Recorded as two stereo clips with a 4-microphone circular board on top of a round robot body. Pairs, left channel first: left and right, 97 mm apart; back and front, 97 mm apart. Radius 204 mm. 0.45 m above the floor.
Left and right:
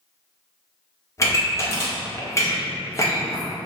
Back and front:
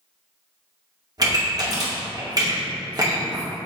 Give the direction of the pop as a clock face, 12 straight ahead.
11 o'clock.